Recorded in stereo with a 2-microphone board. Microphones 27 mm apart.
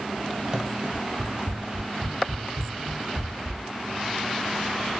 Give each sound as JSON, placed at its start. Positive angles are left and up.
{"t": 0.5, "sound": "running footsteps", "side_deg": -25, "distance_m": 1.3}